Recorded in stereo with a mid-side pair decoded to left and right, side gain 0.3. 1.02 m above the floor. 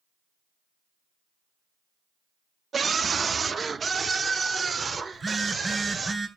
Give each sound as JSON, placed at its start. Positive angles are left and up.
{"t": 2.7, "sound": "a scream", "azimuth_deg": -60, "distance_m": 1.3}
{"t": 5.1, "sound": "a phone buzzing", "azimuth_deg": -40, "distance_m": 6.0}